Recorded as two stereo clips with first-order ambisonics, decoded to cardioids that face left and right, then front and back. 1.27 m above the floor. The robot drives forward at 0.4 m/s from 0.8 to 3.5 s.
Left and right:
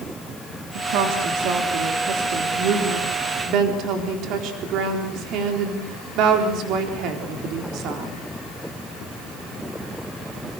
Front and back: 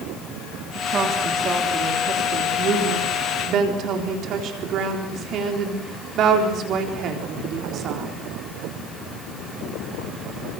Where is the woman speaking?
115° right, 3.5 m; by 8.1 s 130° right, 4 m.